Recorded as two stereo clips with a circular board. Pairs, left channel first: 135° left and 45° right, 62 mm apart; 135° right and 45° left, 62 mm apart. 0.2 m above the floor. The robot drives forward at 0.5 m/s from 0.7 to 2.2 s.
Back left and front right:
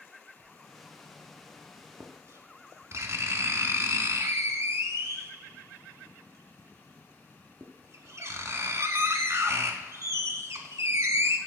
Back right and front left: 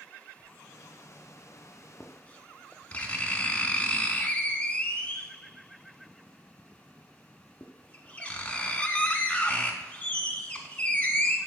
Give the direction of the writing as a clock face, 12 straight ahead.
1 o'clock.